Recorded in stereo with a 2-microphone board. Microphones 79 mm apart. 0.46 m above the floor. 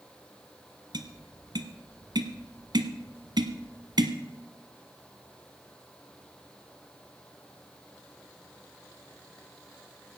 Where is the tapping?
70° right (ahead or behind), 1.2 m.